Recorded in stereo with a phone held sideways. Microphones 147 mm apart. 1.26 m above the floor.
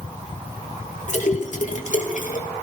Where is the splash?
60° left (ahead or behind), 2.0 m.